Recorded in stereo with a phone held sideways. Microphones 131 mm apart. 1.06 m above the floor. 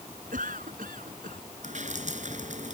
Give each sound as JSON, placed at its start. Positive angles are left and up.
{"t": 0.3, "sound": "a cough", "side_deg": -85}
{"t": 1.6, "sound": "dripping", "side_deg": -65}